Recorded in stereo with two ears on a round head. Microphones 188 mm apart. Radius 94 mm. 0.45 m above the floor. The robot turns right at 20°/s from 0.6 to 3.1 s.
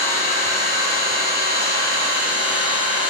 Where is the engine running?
40° left, 2 m; by 3.1 s 90° left, 2 m.